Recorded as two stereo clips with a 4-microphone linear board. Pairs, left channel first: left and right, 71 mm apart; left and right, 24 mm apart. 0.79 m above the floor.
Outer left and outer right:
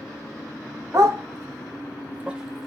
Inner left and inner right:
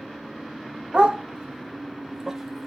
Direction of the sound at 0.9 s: 50° right (ahead or behind).